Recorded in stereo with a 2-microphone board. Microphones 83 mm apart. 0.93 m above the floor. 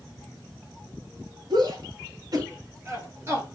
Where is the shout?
60° right (ahead or behind), 1.9 m; by 3.5 s 30° right (ahead or behind), 1.8 m.